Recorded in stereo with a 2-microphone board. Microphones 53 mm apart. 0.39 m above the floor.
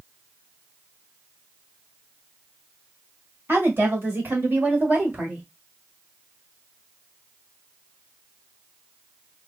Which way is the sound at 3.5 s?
45° right (ahead or behind).